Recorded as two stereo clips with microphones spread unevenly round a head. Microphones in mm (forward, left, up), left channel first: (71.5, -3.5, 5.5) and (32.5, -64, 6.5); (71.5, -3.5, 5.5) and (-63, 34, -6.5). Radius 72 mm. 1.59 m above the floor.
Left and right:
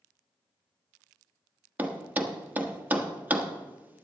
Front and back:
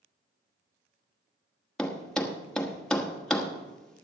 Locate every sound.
1.8 s a thud: 85° right, 1.1 m